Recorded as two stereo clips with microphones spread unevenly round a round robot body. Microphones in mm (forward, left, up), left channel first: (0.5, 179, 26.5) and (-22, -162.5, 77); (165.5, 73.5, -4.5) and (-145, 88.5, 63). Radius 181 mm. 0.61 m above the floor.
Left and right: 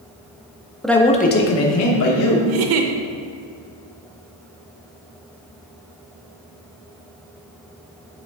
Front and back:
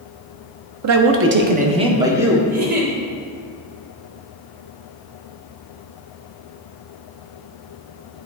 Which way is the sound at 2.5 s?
120° right.